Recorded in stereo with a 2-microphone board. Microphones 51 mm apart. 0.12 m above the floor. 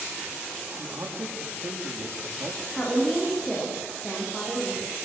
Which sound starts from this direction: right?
A man speaking, at 0.8 s.